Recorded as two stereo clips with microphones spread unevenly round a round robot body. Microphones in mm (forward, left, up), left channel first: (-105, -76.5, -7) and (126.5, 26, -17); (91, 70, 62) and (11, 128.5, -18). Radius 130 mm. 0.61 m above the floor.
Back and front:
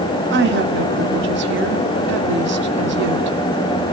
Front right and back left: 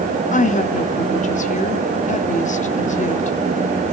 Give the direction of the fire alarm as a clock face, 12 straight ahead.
No fire alarm in this recording.